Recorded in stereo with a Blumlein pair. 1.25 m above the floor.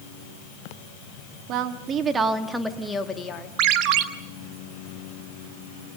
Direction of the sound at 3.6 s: 40° right.